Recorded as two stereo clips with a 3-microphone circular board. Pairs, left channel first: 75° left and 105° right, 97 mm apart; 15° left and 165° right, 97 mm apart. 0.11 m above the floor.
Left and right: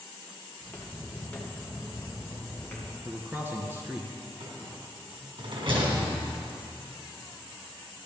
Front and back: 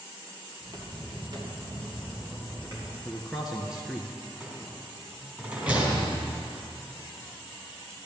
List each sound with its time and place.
0.6 s footsteps: 150° left, 2.5 m
3.0 s a man speaking: 85° right, 1.1 m
4.4 s a rattle: 95° right, 3 m